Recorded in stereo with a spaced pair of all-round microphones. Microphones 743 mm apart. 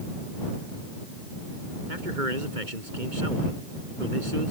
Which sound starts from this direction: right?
A man speaking, at 1.9 s.